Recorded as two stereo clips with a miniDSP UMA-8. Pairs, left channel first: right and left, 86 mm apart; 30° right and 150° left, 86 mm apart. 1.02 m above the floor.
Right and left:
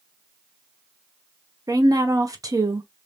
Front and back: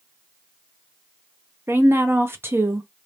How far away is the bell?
I don't hear a bell.